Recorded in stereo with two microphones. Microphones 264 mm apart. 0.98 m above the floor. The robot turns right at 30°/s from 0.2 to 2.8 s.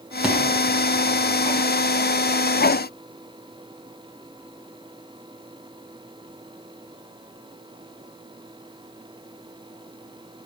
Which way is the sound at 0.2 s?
5° right (ahead or behind).